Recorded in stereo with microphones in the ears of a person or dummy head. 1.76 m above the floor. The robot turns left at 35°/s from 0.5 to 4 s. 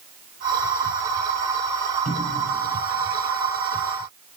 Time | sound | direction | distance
2.0 | a cupboard door | 35° right (ahead or behind) | 7 m